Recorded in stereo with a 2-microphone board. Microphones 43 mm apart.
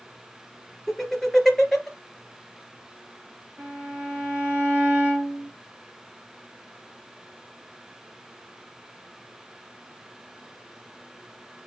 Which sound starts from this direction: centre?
Laughter, at 0.9 s.